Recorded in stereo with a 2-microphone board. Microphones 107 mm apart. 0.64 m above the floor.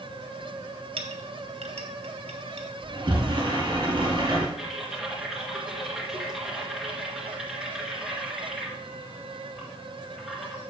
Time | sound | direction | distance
1.0 | a clink | 75° right (ahead or behind) | 1.2 m
2.8 | a sliding door | 45° right (ahead or behind) | 2.5 m
4.6 | typing on a keyboard | 5° right (ahead or behind) | 2 m